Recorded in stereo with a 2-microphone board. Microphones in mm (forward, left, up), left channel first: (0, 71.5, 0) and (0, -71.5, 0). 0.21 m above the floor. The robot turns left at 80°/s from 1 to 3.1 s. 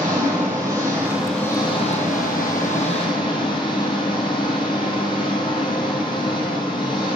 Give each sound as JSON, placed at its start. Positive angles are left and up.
{"t": 0.0, "sound": "an engine running", "azimuth_deg": -160, "distance_m": 4.5}